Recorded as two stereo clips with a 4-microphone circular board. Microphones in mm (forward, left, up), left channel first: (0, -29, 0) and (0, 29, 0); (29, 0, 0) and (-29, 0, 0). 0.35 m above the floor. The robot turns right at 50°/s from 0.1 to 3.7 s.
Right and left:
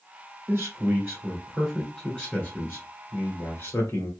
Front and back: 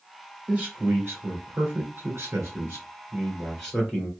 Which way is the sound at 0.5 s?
110° left.